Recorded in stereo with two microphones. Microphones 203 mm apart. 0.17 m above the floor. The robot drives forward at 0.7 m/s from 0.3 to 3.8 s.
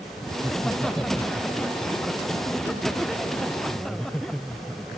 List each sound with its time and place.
0.4 s laughter: 5° left (ahead or behind)